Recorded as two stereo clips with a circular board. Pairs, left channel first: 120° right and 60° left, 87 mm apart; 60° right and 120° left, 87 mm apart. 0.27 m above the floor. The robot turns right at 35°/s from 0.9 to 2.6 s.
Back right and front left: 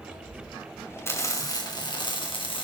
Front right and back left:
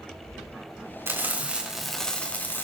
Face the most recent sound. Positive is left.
turn(degrees=-125)